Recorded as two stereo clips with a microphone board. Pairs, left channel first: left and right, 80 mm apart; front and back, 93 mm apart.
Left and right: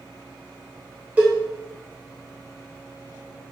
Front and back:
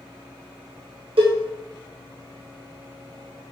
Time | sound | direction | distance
1.2 | a cowbell | 160° right | 1.0 m